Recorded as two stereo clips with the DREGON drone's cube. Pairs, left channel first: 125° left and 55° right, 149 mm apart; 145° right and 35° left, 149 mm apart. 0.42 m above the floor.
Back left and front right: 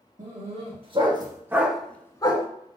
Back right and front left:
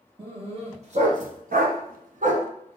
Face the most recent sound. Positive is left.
turn(degrees=70)